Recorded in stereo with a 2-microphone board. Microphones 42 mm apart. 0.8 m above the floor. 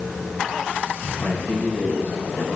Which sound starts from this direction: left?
A man speaking, at 1.2 s.